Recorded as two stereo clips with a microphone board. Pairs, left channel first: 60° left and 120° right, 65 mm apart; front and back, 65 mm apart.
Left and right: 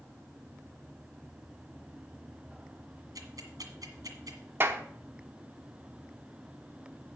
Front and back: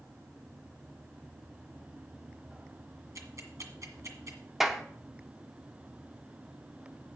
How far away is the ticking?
About 1.7 m.